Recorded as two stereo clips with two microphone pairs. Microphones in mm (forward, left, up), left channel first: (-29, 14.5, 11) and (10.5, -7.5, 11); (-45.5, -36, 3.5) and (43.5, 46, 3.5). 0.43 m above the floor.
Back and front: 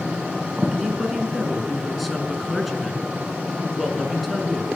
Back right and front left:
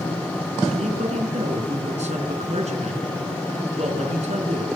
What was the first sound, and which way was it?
A woman speaking, 60° left.